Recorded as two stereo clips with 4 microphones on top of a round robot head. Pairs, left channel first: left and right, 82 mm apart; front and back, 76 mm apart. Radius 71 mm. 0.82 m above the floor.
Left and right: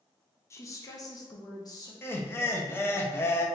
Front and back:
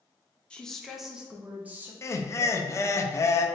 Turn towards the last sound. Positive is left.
turn(degrees=35)